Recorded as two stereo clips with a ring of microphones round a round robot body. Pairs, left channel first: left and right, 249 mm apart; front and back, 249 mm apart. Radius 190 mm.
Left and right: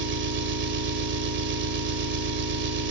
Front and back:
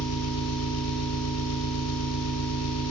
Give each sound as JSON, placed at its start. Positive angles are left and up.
{"t": 0.0, "sound": "an engine running", "azimuth_deg": -45, "distance_m": 2.0}